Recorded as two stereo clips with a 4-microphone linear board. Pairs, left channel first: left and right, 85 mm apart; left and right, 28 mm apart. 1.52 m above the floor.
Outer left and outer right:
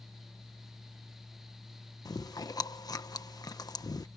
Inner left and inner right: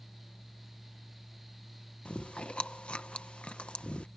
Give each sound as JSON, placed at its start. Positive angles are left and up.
{"t": 2.0, "sound": "chewing", "side_deg": 45}